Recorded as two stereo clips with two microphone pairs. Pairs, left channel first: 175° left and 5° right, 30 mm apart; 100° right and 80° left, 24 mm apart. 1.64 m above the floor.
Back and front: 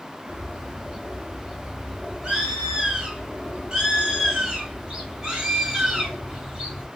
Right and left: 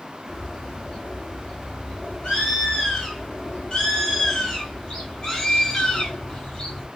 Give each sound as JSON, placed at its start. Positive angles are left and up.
{"t": 0.3, "sound": "a bird", "azimuth_deg": -60, "distance_m": 1.3}